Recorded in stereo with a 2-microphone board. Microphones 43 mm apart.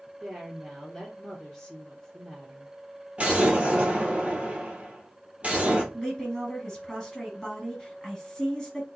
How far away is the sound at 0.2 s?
About 2 m.